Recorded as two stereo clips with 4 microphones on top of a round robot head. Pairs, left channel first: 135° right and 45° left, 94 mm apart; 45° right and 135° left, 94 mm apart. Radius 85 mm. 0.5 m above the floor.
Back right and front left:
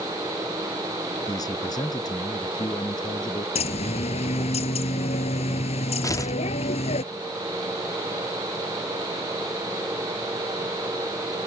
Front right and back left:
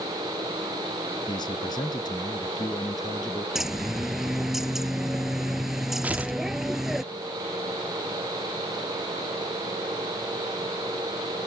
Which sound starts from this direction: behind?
Tearing paper, at 6.0 s.